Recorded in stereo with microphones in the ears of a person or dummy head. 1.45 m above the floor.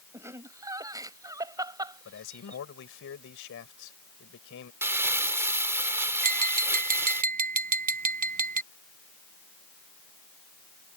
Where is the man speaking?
75° left (ahead or behind).